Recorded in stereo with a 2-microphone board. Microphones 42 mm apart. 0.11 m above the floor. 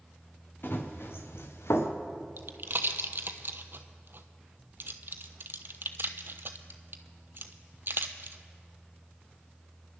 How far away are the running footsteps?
About 3 m.